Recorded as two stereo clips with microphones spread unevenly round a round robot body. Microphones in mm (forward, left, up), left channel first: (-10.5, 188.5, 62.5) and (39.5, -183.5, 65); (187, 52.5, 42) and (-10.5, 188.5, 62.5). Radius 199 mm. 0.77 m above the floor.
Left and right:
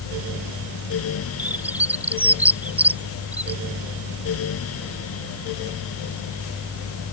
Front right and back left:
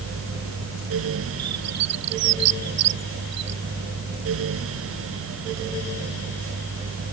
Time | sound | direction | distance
1.4 | a bird | 170° right | ?